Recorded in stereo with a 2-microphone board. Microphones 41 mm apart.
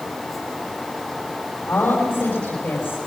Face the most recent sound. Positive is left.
turn(degrees=70)  # may be behind; listen again after turning